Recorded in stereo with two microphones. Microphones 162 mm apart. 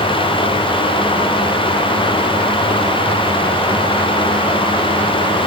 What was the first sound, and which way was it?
Only background noise.